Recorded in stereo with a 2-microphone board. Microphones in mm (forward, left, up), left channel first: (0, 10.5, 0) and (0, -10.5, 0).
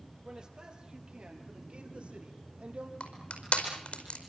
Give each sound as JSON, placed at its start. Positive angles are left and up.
{"t": 0.2, "sound": "a man speaking", "side_deg": -30, "distance_m": 5.0}
{"t": 3.0, "sound": "crushing", "side_deg": 65, "distance_m": 4.5}